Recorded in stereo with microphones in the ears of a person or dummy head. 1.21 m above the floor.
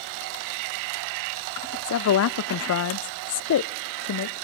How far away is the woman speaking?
About 0.6 m.